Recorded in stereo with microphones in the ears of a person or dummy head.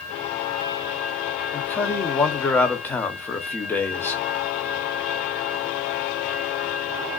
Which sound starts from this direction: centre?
A man speaking, at 1.5 s.